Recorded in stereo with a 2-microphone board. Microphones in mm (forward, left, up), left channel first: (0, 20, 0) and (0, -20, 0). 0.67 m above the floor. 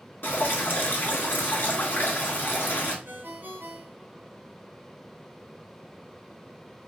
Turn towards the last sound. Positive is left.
turn(degrees=-55)  # may be behind; listen again after turning